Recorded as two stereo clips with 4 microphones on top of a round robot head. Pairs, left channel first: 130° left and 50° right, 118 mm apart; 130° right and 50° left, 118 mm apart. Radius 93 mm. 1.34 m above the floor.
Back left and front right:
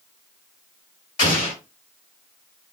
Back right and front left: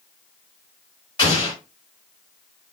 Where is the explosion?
Straight behind, 1.6 m.